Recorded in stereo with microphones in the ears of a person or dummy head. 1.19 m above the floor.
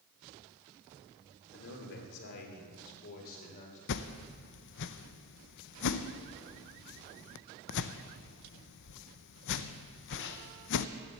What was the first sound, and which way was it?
A man speaking, 70° left (ahead or behind).